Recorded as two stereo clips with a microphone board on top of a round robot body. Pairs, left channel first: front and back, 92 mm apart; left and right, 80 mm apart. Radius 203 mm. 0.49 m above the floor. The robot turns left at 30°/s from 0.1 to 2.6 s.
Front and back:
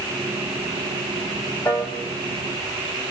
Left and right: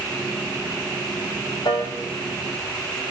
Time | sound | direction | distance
1.6 | a piano | 60° left | 5.5 m